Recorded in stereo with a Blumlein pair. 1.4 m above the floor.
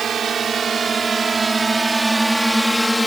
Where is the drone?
20° right; by 3.1 s 5° left.